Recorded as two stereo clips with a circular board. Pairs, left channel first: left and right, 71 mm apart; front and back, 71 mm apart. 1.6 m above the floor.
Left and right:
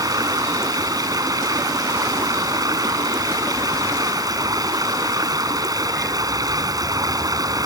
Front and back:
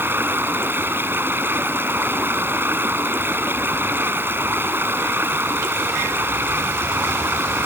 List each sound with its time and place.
0.0 s running water: 120° right